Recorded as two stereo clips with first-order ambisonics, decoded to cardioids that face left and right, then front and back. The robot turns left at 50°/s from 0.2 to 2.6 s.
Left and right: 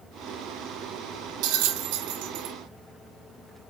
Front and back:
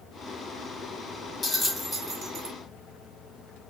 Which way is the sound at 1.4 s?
65° right.